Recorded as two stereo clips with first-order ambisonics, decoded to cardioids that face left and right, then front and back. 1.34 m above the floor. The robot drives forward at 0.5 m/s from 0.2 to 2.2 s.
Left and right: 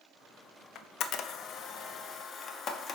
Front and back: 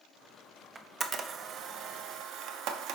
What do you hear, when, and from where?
0.8 s a camera shutter: 105° left, 0.7 m; by 3.0 s 150° left, 1.1 m